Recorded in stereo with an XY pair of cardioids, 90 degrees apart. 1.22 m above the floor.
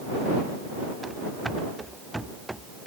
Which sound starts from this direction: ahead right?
Running footsteps, at 1.0 s.